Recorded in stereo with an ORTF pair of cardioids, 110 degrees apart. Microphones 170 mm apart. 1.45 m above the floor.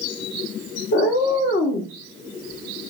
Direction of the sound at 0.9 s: 65° left.